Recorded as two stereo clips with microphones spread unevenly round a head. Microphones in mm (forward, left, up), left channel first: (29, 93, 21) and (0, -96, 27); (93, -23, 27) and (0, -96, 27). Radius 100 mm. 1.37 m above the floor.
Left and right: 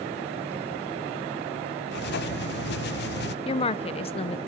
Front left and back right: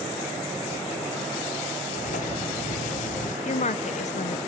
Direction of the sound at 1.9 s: 50° left.